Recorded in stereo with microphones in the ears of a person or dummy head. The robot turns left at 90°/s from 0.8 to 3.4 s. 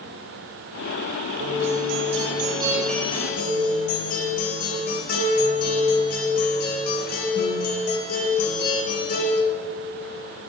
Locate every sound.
1.4 s a guitar: 50° right, 5 m; by 9.4 s 130° left, 5 m